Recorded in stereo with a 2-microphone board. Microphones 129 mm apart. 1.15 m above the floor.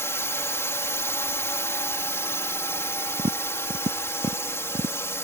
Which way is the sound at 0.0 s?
20° left (ahead or behind).